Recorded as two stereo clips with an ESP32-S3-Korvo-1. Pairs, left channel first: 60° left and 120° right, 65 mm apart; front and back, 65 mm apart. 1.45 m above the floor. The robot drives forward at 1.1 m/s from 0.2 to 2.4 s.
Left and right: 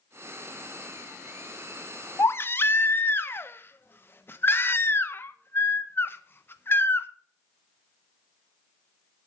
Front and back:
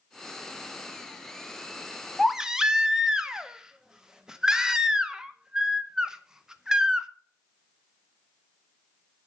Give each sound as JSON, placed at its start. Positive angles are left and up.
{"t": 2.2, "sound": "a baby crying", "azimuth_deg": 80, "distance_m": 0.7}